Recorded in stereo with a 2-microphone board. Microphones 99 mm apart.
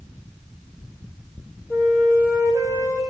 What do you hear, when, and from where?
1.7 s a flute: 30° left (ahead or behind), 1.6 m